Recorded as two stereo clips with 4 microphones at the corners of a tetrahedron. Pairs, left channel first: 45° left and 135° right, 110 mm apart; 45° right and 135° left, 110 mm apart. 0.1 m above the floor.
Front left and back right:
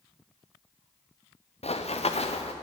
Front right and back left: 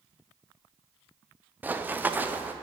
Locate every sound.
1.6 s running footsteps: 60° left, 1.3 m